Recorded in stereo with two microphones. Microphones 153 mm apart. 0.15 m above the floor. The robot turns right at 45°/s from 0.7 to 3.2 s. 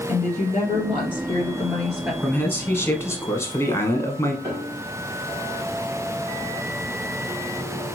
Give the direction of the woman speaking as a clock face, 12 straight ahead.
8 o'clock.